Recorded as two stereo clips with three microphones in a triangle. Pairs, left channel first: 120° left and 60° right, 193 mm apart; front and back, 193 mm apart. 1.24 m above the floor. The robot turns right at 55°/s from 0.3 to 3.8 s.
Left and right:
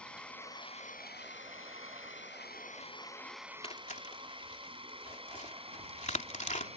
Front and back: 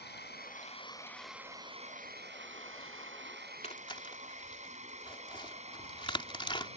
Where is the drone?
35° left; by 6.8 s 120° right.